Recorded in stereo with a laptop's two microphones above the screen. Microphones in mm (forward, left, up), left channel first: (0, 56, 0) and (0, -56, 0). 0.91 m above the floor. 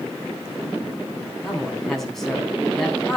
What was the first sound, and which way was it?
A man speaking, 5° left (ahead or behind).